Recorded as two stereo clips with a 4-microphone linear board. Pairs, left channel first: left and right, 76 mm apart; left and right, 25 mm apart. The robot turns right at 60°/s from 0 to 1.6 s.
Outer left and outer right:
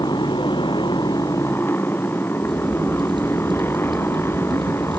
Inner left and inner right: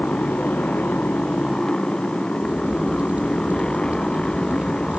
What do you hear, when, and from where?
0.0 s a motorcycle: 60° left (ahead or behind); by 5.0 s 35° left (ahead or behind)
2.4 s a crack: 85° right